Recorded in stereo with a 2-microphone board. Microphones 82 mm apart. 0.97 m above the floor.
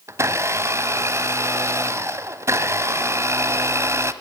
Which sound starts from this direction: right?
A blender, at 0.1 s.